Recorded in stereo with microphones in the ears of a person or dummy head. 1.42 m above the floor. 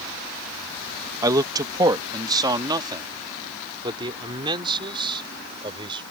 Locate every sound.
1.2 s a man speaking: 20° right (ahead or behind); by 6.0 s 25° right (ahead or behind)